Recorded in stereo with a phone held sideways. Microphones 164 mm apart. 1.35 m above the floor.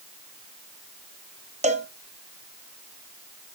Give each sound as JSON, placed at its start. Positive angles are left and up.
{"t": 1.6, "sound": "a cowbell", "side_deg": -45, "distance_m": 0.9}